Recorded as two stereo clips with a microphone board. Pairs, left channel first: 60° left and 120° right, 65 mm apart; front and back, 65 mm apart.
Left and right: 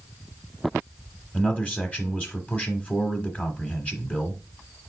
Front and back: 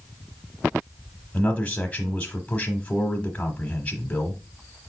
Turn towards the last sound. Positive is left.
turn(degrees=35)